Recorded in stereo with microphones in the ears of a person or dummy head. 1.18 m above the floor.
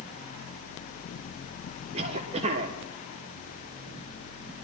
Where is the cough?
35° right (ahead or behind), 1.3 m.